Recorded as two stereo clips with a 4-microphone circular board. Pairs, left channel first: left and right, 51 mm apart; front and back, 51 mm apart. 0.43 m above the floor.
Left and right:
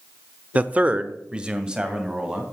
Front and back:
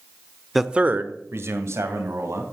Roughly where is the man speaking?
Right.